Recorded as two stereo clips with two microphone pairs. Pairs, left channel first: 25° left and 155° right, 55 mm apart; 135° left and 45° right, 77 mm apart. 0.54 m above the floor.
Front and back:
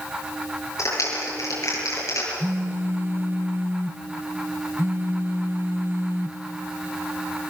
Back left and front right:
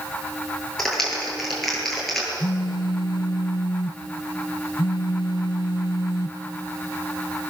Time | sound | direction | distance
0.8 | a clap | 50° left | 9.5 m
2.4 | a phone buzzing | 165° left | 0.8 m